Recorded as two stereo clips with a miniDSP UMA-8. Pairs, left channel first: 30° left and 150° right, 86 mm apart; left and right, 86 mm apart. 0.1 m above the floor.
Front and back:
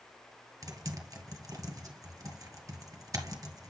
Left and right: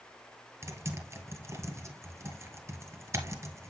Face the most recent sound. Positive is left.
turn(degrees=-130)